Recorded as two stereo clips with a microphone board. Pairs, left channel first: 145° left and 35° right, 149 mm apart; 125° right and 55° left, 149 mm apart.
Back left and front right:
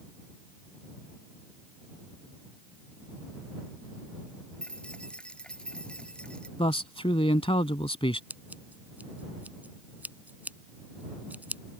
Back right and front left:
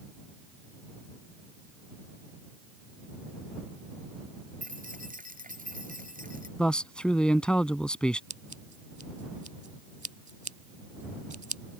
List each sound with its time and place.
4.6 s keys jangling: 65° left
6.6 s a man speaking: 155° left
8.3 s scissors: 40° left